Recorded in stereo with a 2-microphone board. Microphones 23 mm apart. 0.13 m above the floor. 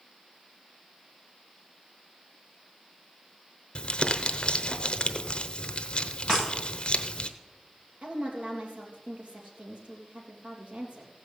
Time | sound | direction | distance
3.8 | crumpling | 45° left (ahead or behind) | 0.9 m
6.3 | breaking glass | 35° right (ahead or behind) | 7.5 m
8.0 | a woman speaking | 55° right (ahead or behind) | 3.5 m